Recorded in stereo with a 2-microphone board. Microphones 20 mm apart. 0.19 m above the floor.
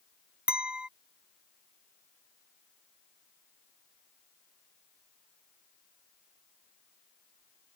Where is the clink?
55° right (ahead or behind).